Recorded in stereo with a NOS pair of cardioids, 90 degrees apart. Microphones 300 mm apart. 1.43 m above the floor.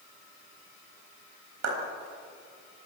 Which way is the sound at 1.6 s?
60° right.